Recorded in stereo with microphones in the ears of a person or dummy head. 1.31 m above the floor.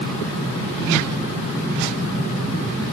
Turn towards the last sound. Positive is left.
No sound to turn to.